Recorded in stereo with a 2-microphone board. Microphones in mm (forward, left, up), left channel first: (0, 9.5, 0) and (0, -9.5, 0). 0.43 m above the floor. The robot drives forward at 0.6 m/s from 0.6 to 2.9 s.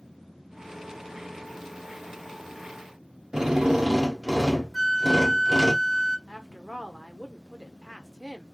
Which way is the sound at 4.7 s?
15° left (ahead or behind).